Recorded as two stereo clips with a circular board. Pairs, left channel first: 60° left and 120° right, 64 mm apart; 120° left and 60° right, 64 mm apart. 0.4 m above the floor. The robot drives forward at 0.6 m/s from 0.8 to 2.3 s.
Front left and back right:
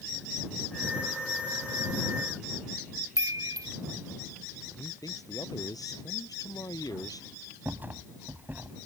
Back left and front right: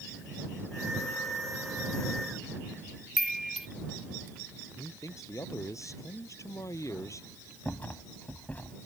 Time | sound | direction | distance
3.2 | a chime | 150° right | ?
4.8 | a man speaking | 80° left | ?
7.7 | a rattle | straight behind | ?